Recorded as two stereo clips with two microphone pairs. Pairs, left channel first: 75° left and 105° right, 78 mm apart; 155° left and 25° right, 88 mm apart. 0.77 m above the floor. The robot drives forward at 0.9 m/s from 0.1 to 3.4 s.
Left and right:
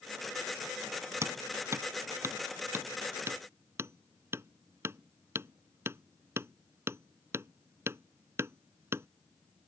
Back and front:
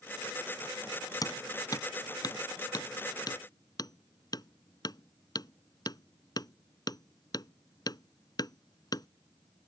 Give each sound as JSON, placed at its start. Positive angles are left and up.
{"t": 1.2, "sound": "hammering", "azimuth_deg": -160}